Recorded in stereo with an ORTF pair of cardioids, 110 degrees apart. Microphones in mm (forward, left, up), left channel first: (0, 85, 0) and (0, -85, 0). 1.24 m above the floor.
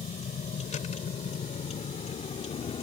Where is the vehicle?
45° left; by 2.8 s 40° left.